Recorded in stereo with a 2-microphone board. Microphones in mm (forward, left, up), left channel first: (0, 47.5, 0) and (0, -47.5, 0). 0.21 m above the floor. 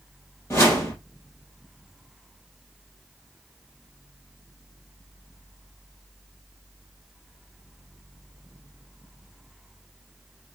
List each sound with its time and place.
0.5 s a whoosh: 25° left (ahead or behind), 3 m